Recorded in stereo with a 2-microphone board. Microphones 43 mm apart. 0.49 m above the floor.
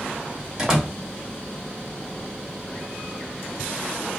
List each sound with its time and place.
0.6 s a door slam: 15° right (ahead or behind), 1.1 m